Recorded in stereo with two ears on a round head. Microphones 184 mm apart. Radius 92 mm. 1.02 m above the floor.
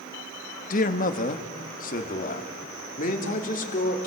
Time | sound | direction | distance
0.7 | a man speaking | 40° left (ahead or behind) | 1.5 m